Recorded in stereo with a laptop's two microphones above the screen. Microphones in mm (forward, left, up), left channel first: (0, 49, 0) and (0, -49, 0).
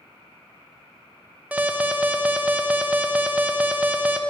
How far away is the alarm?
About 0.6 m.